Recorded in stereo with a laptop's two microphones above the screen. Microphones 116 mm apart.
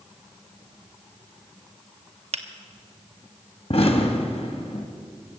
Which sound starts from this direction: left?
An explosion, at 3.7 s.